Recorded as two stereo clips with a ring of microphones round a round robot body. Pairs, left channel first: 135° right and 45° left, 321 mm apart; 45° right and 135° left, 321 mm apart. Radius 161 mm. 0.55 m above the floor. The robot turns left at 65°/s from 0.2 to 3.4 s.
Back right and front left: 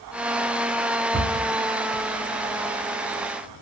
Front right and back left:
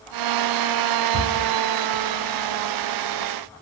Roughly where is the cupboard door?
Behind left.